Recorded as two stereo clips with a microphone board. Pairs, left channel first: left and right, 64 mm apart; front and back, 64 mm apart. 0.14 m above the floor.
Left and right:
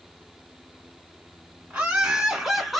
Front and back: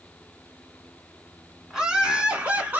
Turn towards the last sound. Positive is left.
turn(degrees=175)